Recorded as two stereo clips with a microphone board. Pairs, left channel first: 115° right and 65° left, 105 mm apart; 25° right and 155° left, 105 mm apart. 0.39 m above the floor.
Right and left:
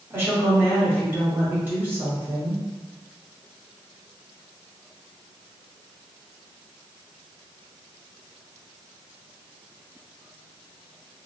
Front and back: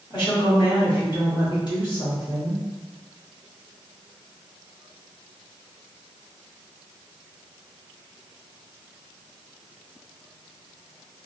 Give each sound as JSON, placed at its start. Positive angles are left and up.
{"t": 0.1, "sound": "a woman speaking", "azimuth_deg": 0, "distance_m": 1.9}